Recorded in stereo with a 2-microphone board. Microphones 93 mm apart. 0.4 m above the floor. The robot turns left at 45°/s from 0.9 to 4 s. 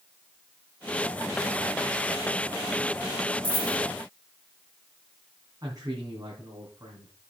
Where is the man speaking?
40° right (ahead or behind), 3 m.